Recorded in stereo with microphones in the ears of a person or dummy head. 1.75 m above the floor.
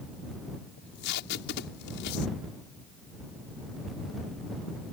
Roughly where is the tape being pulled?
Left.